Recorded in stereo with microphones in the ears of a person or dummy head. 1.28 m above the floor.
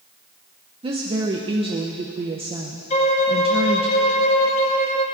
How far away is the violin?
About 1.2 m.